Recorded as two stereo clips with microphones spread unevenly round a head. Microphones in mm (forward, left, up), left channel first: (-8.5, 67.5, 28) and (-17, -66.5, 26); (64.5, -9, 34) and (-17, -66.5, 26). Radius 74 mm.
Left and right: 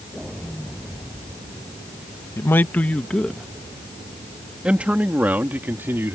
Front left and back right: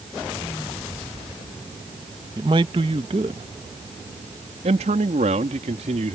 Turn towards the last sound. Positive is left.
turn(degrees=-170)